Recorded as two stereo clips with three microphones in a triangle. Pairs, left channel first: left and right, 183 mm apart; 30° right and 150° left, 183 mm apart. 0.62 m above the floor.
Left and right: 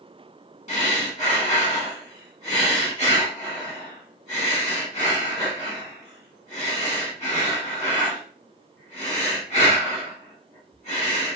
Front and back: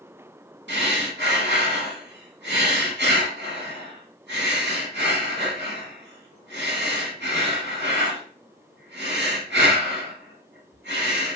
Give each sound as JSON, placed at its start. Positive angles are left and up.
{"t": 0.7, "sound": "breathing", "azimuth_deg": 140, "distance_m": 1.0}